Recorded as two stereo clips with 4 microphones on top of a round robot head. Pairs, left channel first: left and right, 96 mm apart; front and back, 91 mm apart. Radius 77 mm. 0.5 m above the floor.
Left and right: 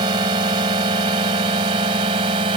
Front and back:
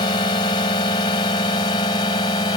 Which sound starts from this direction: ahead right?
A drone, at 0.0 s.